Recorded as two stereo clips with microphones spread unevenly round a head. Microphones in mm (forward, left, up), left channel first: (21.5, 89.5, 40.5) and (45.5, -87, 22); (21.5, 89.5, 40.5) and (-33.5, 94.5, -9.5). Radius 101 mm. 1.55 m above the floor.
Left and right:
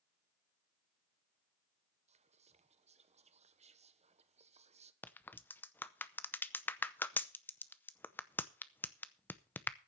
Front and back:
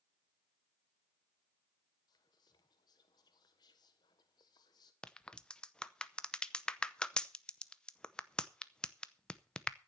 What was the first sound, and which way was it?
Whispering, 30° right.